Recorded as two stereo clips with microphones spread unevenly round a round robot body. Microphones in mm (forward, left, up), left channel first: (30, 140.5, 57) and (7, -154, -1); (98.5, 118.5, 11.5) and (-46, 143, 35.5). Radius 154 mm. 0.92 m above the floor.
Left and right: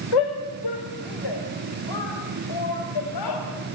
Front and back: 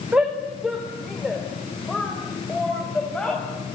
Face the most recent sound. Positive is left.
turn(degrees=75)